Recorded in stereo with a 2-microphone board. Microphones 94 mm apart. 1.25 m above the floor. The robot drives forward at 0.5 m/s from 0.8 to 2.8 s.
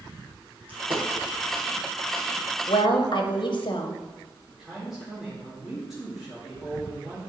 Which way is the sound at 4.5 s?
5° right (ahead or behind).